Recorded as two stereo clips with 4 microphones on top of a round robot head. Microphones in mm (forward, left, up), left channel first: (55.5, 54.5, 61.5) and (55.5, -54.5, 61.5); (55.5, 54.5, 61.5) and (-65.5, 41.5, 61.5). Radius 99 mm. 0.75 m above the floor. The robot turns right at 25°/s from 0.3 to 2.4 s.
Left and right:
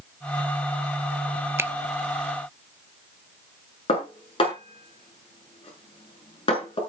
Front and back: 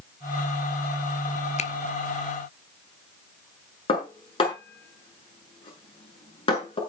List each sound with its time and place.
1.6 s a finger snap: 25° right, 1.0 m; by 1.7 s 20° right, 1.0 m
3.9 s dishes clattering: 50° left, 6.5 m